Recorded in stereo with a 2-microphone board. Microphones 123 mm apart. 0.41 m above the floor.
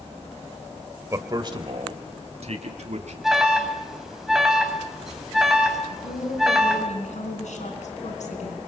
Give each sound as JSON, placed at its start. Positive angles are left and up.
{"t": 1.1, "sound": "a man speaking", "side_deg": -25, "distance_m": 1.8}
{"t": 3.2, "sound": "an alarm", "side_deg": 0, "distance_m": 3.0}
{"t": 5.9, "sound": "a woman speaking", "side_deg": 70, "distance_m": 4.0}